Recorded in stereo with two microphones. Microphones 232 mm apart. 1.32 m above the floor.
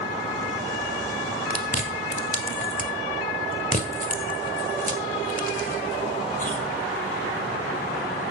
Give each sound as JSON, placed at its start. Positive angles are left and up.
{"t": 1.5, "sound": "chewing", "side_deg": 35, "distance_m": 1.5}